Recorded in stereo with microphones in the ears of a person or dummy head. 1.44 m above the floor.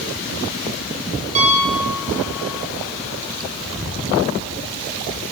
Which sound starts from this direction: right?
A piano, at 1.4 s.